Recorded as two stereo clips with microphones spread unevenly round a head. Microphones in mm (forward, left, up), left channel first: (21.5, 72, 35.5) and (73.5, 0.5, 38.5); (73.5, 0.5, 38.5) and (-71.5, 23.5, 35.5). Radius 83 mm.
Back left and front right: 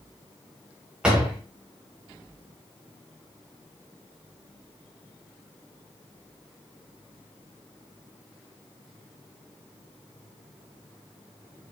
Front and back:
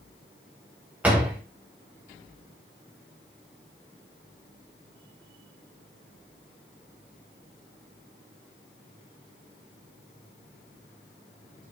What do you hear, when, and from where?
1.0 s a door slam: 115° right, 0.6 m